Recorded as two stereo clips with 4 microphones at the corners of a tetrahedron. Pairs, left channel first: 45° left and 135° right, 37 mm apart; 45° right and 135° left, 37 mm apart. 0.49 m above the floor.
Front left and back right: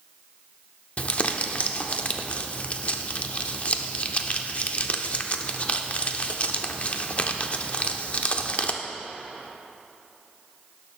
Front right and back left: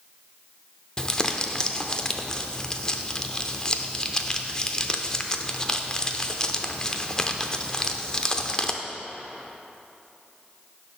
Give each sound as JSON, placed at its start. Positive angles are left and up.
{"t": 1.0, "sound": "crumpling", "azimuth_deg": 15, "distance_m": 0.6}